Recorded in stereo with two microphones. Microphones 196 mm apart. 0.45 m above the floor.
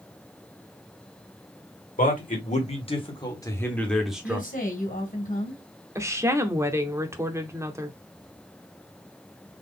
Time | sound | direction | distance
2.0 | a man speaking | 45° left (ahead or behind) | 1.9 m
4.2 | a woman speaking | 45° left (ahead or behind) | 2.5 m
6.0 | a woman speaking | 15° right (ahead or behind) | 0.8 m